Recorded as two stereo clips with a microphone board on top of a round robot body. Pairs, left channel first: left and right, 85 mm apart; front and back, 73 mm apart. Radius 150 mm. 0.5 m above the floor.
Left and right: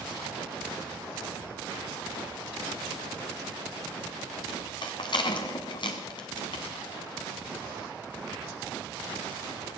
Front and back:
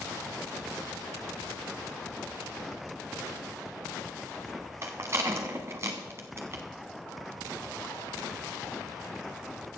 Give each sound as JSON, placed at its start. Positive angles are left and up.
{"t": 4.8, "sound": "a rattle", "azimuth_deg": 125, "distance_m": 0.8}